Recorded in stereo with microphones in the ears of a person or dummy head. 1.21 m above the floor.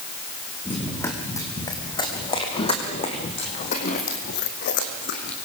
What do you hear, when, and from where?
0.7 s running footsteps: 10° left (ahead or behind), 4 m; by 5.3 s 60° left (ahead or behind), 3 m